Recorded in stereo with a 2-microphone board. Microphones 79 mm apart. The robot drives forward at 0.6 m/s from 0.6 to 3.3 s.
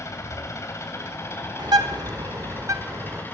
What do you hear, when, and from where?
0.0 s an engine running: 40° left (ahead or behind), 3.5 m; by 3.4 s 25° left (ahead or behind), 4.5 m
1.6 s a bird: 65° right (ahead or behind), 1.2 m; by 3.2 s 40° right (ahead or behind), 1.7 m